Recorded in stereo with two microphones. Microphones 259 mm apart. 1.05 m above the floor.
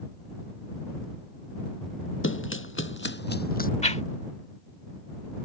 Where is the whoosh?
30° left (ahead or behind).